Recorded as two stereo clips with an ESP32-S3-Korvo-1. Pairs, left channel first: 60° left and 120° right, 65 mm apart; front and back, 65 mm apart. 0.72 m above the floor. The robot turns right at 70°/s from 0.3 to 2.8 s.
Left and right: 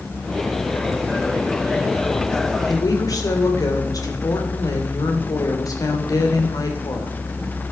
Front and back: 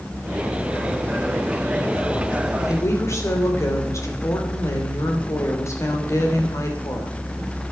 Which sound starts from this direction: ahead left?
A woman speaking, at 2.7 s.